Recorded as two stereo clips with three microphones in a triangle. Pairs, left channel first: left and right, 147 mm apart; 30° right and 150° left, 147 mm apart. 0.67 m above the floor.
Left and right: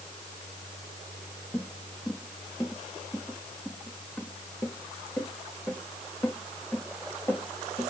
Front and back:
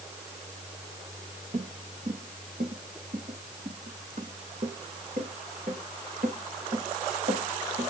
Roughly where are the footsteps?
Behind.